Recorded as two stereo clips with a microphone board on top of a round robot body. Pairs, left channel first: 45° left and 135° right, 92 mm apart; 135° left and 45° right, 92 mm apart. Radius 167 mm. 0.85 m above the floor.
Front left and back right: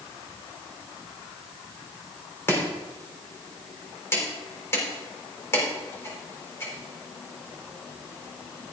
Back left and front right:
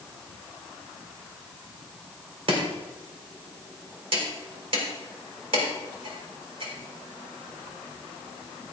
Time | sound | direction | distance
2.5 | chopping | 20° right | 4.5 m